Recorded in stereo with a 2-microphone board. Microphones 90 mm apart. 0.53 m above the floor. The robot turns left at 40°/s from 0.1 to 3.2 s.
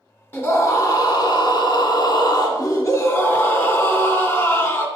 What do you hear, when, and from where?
0.3 s a scream: 155° left, 1.7 m; by 4.9 s 40° left, 1.7 m